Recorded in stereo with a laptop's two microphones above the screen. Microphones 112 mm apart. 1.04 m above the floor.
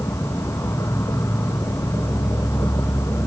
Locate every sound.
0.0 s an insect: 25° left (ahead or behind), 0.8 m